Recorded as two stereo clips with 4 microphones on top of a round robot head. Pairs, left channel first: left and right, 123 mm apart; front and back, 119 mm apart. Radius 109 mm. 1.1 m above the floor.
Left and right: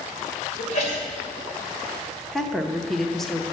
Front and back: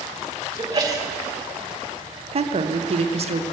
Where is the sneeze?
125° left, 2.5 m.